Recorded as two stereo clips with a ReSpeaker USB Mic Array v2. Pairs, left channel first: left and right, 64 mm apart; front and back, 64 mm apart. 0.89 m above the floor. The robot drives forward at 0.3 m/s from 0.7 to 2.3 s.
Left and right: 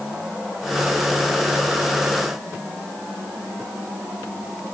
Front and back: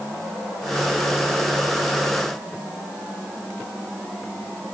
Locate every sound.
Only background noise.